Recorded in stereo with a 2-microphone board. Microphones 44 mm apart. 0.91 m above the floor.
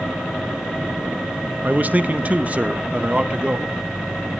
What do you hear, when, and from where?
1.6 s a man speaking: 35° right (ahead or behind), 1.1 m; by 3.8 s 25° right (ahead or behind), 2 m